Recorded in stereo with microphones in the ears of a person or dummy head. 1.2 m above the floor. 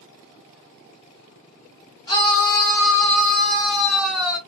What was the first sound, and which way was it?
A scream, 15° left (ahead or behind).